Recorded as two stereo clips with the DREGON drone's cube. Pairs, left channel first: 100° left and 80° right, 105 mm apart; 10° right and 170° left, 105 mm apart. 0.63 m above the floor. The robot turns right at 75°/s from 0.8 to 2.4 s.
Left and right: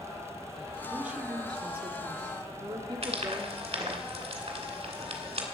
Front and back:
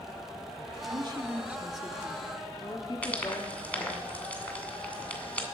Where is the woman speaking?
165° right, 1.5 m; by 4.0 s 55° right, 1.5 m.